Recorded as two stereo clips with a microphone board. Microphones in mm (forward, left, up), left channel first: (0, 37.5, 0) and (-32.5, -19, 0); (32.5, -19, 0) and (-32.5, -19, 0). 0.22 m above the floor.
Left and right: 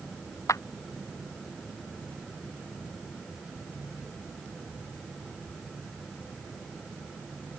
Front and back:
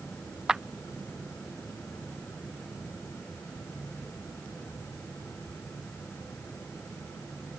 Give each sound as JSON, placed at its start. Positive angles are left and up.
{"t": 0.5, "sound": "a clap", "azimuth_deg": 100}